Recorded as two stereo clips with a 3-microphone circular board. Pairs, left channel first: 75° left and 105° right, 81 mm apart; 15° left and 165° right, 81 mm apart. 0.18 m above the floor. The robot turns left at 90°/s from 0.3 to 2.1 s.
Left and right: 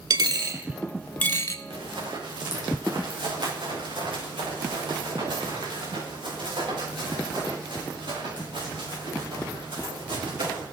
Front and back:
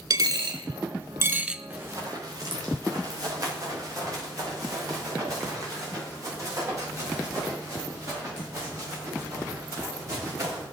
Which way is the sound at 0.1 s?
135° right.